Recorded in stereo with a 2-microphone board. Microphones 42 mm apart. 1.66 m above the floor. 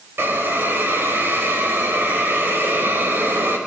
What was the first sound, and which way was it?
A hiss, 70° right (ahead or behind).